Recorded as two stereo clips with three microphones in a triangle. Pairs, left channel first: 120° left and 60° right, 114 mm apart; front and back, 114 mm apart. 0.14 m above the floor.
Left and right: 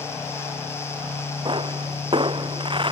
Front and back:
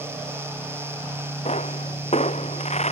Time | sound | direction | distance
1.4 | a pop | 15° right | ?